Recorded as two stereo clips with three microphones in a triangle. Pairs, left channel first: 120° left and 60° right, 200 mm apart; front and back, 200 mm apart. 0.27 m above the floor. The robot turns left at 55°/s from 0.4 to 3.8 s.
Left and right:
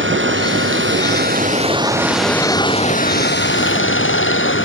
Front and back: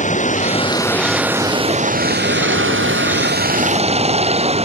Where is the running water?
50° right; by 4.7 s 120° left.